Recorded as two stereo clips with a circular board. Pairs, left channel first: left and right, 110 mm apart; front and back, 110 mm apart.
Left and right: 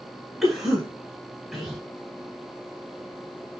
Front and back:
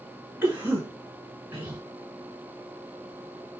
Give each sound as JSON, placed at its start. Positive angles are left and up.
{"t": 0.4, "sound": "a cough", "azimuth_deg": 180, "distance_m": 1.1}